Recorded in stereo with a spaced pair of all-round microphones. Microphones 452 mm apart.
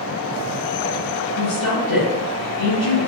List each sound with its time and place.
1.4 s a woman speaking: 80° left, 1.5 m